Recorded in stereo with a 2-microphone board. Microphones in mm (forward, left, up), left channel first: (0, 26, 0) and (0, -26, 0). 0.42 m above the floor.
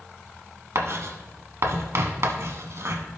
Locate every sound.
0.8 s writing: 65° right (ahead or behind), 1.1 m